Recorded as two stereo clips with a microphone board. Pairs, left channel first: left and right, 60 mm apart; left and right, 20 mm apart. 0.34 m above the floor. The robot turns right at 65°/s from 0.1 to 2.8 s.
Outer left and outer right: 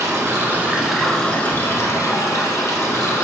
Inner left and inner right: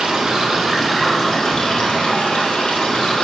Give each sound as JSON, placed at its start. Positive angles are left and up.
{"t": 0.0, "sound": "running water", "azimuth_deg": -60, "distance_m": 0.9}